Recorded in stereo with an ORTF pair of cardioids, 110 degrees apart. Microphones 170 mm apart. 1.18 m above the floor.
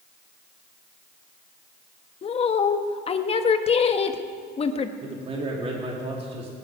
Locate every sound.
2.2 s a woman speaking: 35° left, 1.3 m
5.0 s a man speaking: 35° right, 2.5 m